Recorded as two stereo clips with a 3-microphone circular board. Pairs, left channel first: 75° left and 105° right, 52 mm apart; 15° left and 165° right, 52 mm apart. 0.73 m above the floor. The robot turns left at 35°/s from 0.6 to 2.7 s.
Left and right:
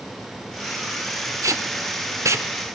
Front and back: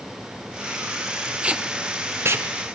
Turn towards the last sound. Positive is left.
turn(degrees=-140)